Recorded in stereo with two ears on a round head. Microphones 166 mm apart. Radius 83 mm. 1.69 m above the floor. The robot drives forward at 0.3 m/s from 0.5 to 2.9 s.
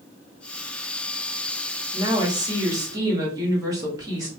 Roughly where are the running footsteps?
No running footsteps in this recording.